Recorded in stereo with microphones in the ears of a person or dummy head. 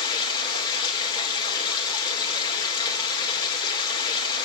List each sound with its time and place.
0.0 s running water: 25° left (ahead or behind), 3 m